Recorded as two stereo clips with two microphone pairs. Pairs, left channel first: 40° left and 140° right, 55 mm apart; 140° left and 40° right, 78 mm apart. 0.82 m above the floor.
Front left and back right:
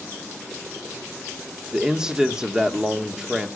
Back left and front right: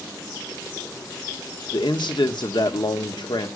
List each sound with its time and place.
1.7 s a man speaking: 145° left, 1.6 m